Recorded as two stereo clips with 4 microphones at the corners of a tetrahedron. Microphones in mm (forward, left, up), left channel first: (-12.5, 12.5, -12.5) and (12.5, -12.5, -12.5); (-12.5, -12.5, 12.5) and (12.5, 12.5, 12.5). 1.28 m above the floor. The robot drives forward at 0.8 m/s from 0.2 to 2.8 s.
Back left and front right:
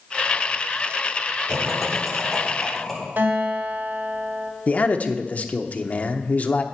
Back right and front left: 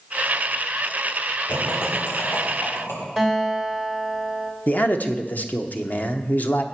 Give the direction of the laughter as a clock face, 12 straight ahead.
4 o'clock.